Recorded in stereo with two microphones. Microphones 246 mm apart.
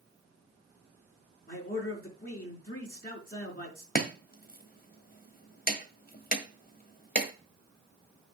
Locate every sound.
1.5 s a man speaking: 40° left (ahead or behind), 4.5 m
4.0 s chopping: 35° left (ahead or behind), 1.5 m